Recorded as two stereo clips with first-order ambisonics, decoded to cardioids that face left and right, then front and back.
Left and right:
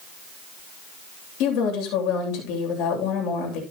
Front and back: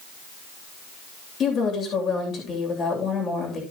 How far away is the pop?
I don't hear a pop.